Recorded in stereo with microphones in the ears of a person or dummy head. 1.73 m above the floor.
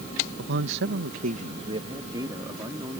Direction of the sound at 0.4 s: 60° right (ahead or behind).